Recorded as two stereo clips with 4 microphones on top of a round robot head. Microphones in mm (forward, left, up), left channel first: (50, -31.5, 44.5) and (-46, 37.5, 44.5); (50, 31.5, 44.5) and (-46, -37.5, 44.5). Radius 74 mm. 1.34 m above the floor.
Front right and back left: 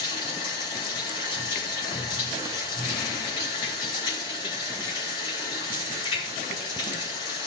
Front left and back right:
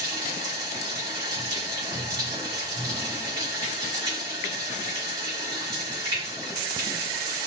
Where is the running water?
85° right, 3 m.